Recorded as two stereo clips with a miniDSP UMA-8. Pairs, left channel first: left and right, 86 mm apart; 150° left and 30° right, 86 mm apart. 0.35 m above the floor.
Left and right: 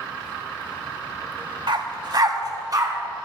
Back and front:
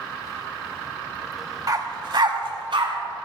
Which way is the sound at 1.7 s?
75° right.